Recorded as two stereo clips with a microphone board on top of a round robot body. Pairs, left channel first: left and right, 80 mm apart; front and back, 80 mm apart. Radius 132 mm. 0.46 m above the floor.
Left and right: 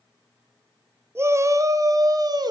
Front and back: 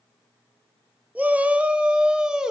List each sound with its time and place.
1.1 s a shout: 125° right, 1.5 m; by 2.5 s 100° right, 2 m